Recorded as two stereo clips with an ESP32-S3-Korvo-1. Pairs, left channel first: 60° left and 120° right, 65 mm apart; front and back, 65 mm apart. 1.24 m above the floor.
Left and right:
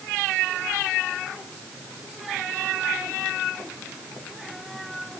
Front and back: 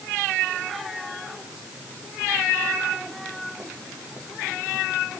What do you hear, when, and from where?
Only background noise.